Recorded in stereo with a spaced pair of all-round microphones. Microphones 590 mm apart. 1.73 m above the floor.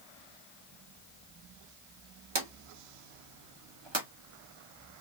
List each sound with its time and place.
2.4 s a drawer: 45° right (ahead or behind), 1.3 m